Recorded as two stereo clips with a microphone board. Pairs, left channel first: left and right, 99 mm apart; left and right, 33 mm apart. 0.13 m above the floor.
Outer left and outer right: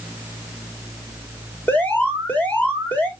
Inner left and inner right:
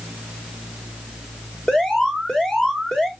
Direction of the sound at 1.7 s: 15° left (ahead or behind).